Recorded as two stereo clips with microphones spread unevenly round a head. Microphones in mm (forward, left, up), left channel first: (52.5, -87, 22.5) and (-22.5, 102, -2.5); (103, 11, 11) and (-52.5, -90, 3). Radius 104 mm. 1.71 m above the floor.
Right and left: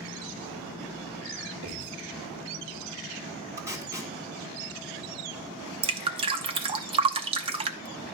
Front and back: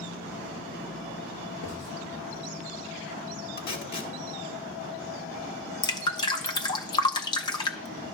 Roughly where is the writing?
Left.